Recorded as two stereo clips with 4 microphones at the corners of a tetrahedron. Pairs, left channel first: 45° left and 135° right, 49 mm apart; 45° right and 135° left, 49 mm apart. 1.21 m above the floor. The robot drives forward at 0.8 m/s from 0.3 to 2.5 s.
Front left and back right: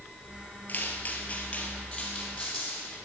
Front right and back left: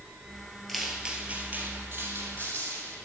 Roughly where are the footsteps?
Ahead left.